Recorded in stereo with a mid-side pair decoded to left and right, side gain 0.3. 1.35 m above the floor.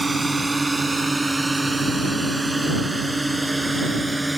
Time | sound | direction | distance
0.0 | a drone | 25° right | ?